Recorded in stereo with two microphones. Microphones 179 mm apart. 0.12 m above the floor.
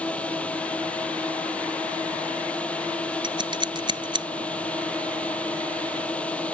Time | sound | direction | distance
0.0 | a drone | 10° left (ahead or behind) | ?
3.2 | scissors | 30° right (ahead or behind) | ?